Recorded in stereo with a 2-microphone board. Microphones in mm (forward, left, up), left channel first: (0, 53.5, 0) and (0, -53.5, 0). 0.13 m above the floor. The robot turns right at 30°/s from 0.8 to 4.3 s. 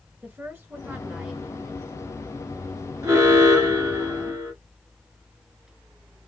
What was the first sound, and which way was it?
A woman speaking, 20° right (ahead or behind).